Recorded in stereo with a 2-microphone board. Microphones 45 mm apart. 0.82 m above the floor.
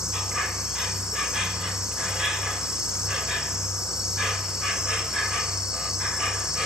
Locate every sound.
0.0 s an insect: 15° right (ahead or behind), 2.5 m